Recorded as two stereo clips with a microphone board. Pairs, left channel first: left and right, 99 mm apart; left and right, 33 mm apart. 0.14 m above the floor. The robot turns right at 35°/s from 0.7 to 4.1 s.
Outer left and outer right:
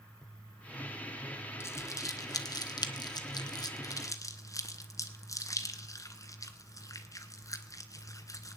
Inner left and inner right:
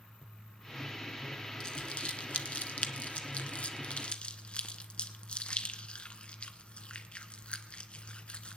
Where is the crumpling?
25° left (ahead or behind), 0.9 m; by 8.6 s 35° left (ahead or behind), 0.9 m.